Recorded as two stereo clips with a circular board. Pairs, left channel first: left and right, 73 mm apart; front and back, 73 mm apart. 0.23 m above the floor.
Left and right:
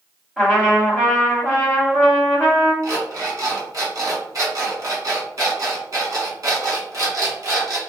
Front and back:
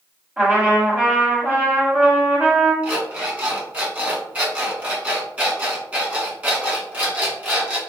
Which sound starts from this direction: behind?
A trumpet, at 0.4 s.